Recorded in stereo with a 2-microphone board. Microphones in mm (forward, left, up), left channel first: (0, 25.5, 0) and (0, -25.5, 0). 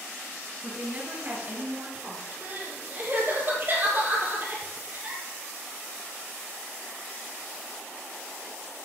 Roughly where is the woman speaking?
Right.